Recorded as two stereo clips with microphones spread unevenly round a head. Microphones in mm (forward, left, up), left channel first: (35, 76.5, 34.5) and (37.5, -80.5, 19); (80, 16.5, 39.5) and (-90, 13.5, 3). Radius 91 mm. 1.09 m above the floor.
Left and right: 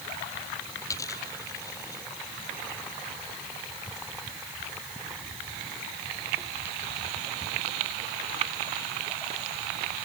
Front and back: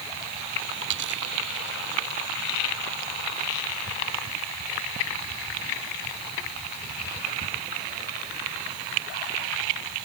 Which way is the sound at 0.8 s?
165° left.